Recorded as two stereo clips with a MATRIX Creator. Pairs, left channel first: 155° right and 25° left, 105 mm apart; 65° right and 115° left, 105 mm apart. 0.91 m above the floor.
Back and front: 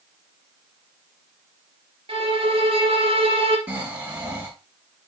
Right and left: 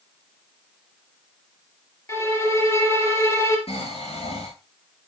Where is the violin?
5° right, 3 m.